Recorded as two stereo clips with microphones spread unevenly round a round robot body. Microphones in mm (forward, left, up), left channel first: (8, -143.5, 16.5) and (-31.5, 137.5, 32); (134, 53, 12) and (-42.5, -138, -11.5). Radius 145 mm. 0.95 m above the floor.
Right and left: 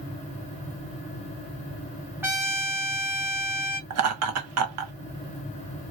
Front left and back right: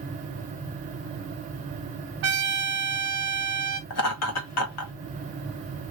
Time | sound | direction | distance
2.2 | a trumpet | straight behind | 1.2 m
3.9 | laughter | 70° left | 1.3 m